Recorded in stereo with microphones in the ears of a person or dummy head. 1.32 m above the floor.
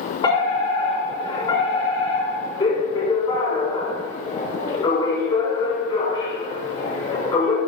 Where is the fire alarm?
30° left (ahead or behind), 6.5 m.